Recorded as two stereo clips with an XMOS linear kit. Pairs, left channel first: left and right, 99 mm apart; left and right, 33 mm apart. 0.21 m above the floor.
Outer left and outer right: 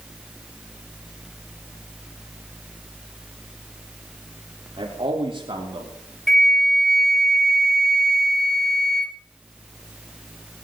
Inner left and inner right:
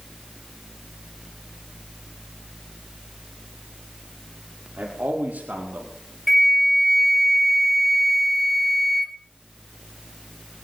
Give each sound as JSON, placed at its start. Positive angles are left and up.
{"t": 4.8, "sound": "a man speaking", "side_deg": -60, "distance_m": 6.5}
{"t": 6.3, "sound": "a flute", "side_deg": 5, "distance_m": 0.7}